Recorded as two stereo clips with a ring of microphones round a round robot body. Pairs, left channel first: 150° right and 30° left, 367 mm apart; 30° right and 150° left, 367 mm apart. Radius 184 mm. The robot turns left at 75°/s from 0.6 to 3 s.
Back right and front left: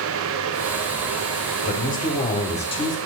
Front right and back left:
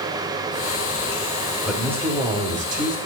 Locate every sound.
1.6 s a man speaking: 115° right, 1.1 m; by 3.0 s 145° left, 1.1 m